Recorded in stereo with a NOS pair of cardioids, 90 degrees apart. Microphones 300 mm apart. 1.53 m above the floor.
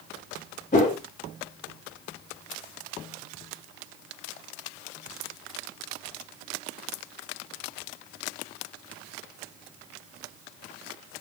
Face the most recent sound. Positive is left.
turn(degrees=25)